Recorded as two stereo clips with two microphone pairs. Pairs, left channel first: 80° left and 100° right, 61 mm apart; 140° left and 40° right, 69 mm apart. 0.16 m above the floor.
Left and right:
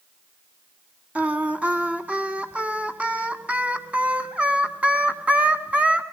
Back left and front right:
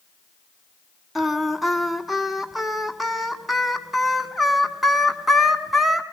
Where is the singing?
130° right, 1.6 m.